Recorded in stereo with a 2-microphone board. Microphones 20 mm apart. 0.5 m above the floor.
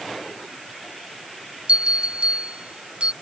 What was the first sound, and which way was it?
A bell, 65° right (ahead or behind).